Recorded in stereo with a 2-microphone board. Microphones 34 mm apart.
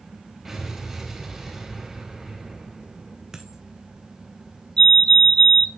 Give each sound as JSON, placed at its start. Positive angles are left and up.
{"t": 0.5, "sound": "an explosion", "side_deg": -10, "distance_m": 4.0}
{"t": 3.3, "sound": "a dropped coin", "side_deg": -20, "distance_m": 1.4}
{"t": 4.8, "sound": "a fire alarm", "side_deg": 25, "distance_m": 2.0}